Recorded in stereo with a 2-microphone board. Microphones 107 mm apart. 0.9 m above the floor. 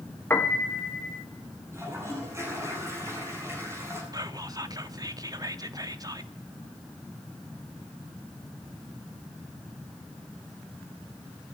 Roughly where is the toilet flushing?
Right.